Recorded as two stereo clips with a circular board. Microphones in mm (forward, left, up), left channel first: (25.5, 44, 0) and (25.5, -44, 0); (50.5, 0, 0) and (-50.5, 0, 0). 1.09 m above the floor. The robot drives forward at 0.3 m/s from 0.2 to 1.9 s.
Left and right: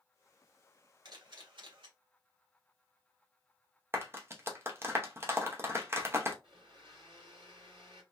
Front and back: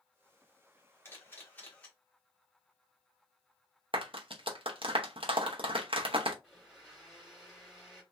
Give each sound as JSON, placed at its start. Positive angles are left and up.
{"t": 1.1, "sound": "a camera shutter", "azimuth_deg": -65, "distance_m": 1.2}
{"t": 3.9, "sound": "a clap", "azimuth_deg": -150, "distance_m": 0.7}
{"t": 6.4, "sound": "a blender", "azimuth_deg": -90, "distance_m": 2.0}